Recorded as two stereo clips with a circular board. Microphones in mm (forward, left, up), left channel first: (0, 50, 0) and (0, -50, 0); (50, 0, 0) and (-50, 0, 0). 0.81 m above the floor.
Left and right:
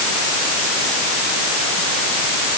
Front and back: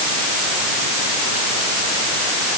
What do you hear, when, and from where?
Only background noise.